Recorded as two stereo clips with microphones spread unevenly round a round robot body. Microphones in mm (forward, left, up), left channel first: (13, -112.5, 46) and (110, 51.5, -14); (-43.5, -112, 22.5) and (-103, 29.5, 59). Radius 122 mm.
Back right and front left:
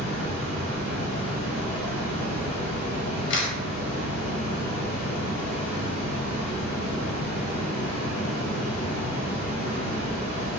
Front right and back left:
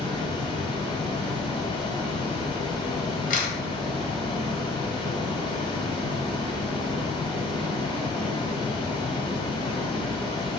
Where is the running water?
130° right, 1.5 m.